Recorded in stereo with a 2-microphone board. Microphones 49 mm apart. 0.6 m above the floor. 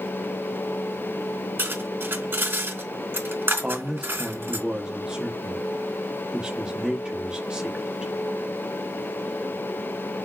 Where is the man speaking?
20° right (ahead or behind), 0.6 m.